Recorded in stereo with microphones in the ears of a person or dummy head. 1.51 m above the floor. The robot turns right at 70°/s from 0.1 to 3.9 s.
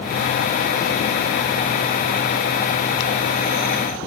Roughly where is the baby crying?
No baby crying in this recording.